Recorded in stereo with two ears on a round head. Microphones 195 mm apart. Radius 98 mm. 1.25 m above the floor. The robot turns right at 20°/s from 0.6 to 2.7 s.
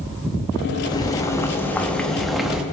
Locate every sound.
0.9 s boiling: 150° left, 0.7 m; by 2.6 s 175° right, 0.7 m